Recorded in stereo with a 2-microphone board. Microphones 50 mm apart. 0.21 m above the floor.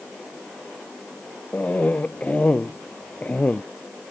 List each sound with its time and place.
1.5 s a cough: 25° left (ahead or behind)